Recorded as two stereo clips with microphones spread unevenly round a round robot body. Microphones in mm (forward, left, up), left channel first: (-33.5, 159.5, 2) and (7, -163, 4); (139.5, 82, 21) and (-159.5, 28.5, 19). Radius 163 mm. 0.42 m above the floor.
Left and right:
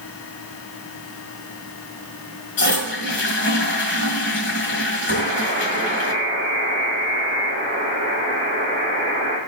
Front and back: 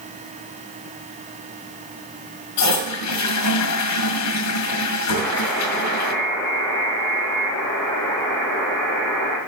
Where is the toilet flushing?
40° left, 1.8 m.